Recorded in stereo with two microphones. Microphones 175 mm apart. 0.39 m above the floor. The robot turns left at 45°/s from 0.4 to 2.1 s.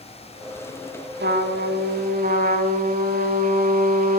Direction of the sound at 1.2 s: 85° right.